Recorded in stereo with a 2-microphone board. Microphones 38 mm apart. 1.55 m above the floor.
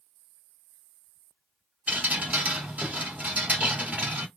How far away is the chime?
No chime in this recording.